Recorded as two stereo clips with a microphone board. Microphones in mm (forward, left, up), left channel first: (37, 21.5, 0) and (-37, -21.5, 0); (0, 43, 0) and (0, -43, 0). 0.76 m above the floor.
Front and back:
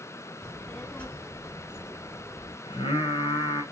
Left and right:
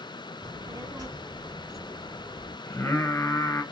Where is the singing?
25° left, 1.8 m.